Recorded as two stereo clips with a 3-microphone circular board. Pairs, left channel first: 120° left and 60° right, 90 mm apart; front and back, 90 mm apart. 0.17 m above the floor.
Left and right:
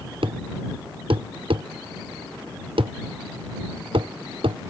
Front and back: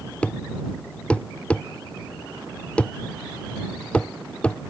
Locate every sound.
0.2 s a thud: 75° right